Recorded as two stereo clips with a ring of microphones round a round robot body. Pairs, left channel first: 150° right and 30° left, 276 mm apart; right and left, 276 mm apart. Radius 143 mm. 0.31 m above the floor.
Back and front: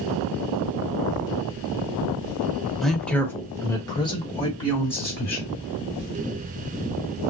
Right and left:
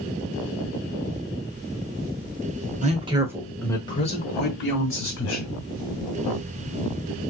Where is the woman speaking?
120° left, 1.1 m; by 5.5 s 85° right, 1.7 m.